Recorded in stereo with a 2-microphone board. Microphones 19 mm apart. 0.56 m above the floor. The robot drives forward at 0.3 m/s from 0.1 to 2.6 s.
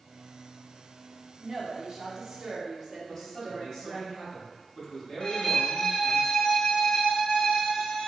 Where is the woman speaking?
35° right (ahead or behind), 0.7 m; by 4.1 s 25° right (ahead or behind), 0.9 m.